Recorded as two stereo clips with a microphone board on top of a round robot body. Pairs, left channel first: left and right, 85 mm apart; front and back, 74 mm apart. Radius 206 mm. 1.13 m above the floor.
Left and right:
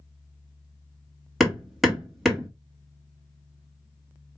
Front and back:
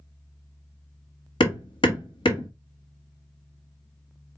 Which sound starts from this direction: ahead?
Hammering, at 1.4 s.